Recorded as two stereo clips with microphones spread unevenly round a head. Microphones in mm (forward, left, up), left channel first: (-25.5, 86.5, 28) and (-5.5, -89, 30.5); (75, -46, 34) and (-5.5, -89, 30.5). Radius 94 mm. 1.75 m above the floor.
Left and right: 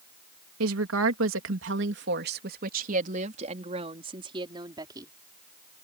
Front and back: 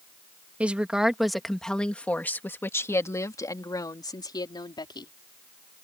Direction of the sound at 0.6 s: 75° right.